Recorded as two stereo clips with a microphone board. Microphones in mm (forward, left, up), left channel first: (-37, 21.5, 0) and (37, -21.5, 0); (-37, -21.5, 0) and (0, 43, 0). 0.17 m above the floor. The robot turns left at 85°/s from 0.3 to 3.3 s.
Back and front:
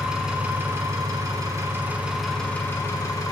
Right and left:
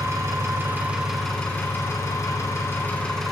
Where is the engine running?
50° left, 1.7 m; by 3.3 s 155° left, 1.7 m.